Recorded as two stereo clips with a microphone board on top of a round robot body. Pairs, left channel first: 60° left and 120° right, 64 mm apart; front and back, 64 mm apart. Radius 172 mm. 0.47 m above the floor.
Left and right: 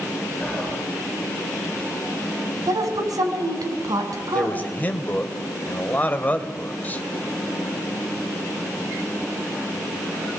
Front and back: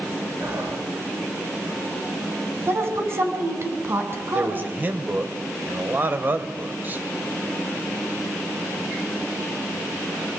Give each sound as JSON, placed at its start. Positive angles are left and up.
{"t": 0.4, "sound": "whispering", "azimuth_deg": 135, "distance_m": 9.5}
{"t": 2.7, "sound": "a woman speaking", "azimuth_deg": -130, "distance_m": 6.5}
{"t": 4.3, "sound": "a man speaking", "azimuth_deg": 125, "distance_m": 3.0}